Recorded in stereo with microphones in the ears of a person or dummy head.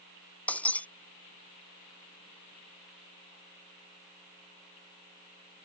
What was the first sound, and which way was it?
Breaking glass, 10° left (ahead or behind).